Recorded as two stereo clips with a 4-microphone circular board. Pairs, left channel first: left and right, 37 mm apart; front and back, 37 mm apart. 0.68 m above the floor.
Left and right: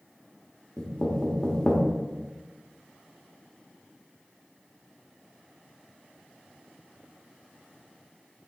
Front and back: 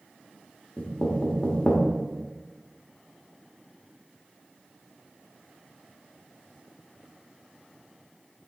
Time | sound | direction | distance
0.8 | knocking | 35° left | 1.2 m